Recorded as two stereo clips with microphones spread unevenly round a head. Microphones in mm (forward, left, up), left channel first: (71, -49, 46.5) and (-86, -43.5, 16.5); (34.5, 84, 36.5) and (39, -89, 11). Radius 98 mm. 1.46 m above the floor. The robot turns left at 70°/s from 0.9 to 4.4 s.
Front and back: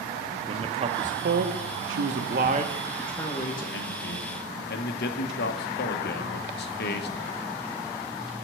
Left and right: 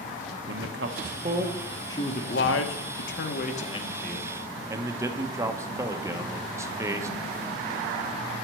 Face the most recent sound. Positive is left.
turn(degrees=-10)